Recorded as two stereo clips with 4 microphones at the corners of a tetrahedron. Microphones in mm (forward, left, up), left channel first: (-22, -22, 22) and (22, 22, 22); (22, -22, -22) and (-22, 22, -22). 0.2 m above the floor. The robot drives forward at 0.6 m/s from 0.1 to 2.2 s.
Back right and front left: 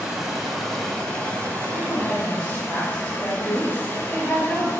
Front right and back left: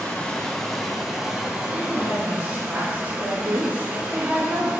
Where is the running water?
15° right, 1.0 m; by 4.8 s 175° right, 1.2 m.